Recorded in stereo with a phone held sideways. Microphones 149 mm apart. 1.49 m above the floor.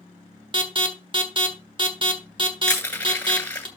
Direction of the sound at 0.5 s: 35° right (ahead or behind).